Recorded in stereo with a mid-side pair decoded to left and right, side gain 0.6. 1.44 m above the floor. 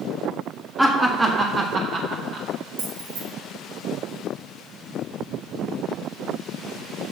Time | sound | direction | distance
0.8 | laughter | 5° right | 1.0 m
2.8 | keys jangling | 65° right | 2.0 m